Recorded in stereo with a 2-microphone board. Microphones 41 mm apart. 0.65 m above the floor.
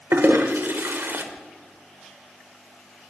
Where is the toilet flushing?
75° right (ahead or behind), 1.1 m.